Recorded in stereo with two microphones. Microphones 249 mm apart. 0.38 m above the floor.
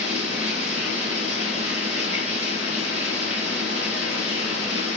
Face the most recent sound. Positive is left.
turn(degrees=-45)  # may be behind; listen again after turning